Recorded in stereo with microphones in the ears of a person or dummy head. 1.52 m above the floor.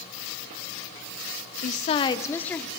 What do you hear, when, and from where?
1.6 s a woman speaking: 55° left (ahead or behind), 0.7 m; by 2.7 s 5° left (ahead or behind), 1.2 m